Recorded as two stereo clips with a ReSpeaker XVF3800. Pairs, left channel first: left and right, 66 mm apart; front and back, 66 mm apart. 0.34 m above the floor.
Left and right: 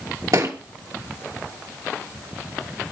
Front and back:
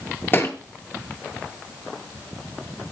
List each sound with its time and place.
0.3 s a thud: 60° right, 1.9 m